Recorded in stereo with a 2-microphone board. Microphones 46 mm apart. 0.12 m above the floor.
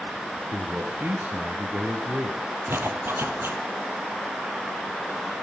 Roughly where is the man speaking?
Right.